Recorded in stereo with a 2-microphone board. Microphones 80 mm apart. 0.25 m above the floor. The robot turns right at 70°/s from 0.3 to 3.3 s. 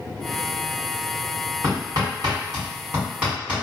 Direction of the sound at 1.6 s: 40° right (ahead or behind).